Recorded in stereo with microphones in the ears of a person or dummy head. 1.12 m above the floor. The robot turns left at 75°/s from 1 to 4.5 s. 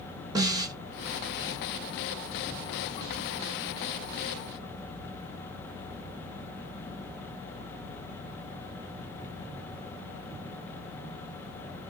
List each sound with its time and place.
0.3 s a snare drum: 25° right (ahead or behind), 0.7 m